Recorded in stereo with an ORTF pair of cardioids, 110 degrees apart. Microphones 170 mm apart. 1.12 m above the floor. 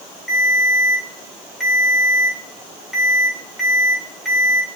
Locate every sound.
0.3 s a ringtone: straight ahead, 2.5 m